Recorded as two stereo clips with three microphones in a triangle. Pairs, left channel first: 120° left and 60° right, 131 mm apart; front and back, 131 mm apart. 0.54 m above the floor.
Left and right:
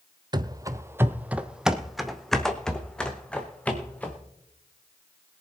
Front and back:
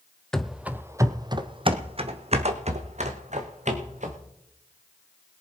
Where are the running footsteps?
85° right, 0.6 m; by 4.2 s 160° right, 2 m.